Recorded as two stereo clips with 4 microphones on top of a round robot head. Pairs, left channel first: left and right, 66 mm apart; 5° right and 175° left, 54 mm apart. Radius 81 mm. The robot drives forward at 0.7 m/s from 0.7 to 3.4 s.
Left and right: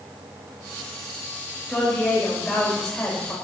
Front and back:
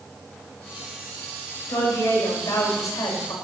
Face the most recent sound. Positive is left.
turn(degrees=5)